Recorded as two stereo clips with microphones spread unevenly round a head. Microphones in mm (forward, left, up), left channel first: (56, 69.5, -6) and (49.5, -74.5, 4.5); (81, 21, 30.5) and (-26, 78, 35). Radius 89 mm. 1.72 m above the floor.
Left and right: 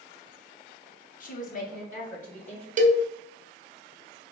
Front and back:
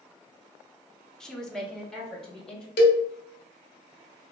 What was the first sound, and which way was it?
A woman speaking, 60° left.